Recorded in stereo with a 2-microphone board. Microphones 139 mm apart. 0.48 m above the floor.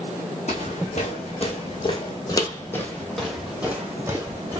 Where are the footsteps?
60° left (ahead or behind), 1.6 m; by 4.6 s 30° right (ahead or behind), 1.4 m.